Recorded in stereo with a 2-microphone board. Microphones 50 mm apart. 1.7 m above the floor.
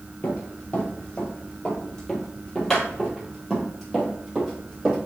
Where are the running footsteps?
30° left (ahead or behind), 2.5 m; by 5.0 s 10° right (ahead or behind), 3.5 m.